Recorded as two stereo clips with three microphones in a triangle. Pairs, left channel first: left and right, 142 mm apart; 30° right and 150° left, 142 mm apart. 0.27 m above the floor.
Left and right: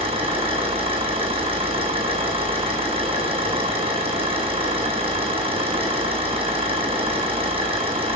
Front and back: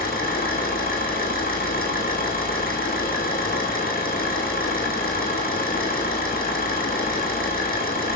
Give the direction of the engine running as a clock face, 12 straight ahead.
1 o'clock.